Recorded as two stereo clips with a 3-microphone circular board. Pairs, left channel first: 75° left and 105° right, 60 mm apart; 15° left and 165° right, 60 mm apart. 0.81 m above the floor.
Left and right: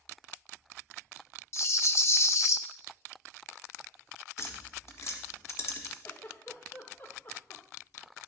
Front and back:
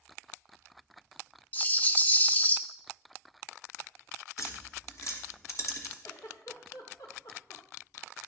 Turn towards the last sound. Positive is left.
turn(degrees=25)